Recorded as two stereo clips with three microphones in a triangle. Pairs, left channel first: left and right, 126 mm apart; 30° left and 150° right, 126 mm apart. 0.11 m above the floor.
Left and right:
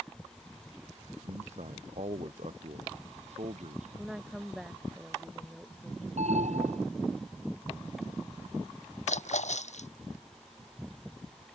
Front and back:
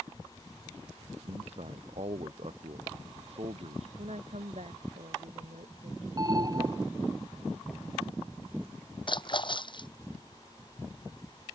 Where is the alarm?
95° right.